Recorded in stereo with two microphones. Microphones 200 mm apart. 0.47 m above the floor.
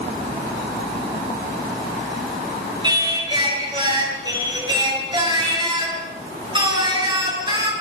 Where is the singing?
20° right (ahead or behind), 7 m.